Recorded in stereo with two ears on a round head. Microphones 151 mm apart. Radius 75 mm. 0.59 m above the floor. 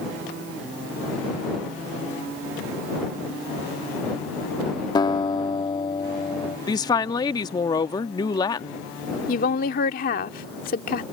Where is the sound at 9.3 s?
55° left (ahead or behind).